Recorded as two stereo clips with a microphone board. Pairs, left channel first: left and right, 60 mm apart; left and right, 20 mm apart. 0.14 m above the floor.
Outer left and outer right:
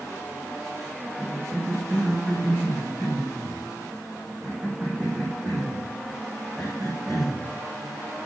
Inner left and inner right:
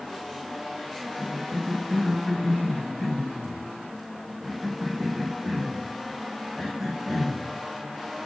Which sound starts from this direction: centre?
A cough, at 1.2 s.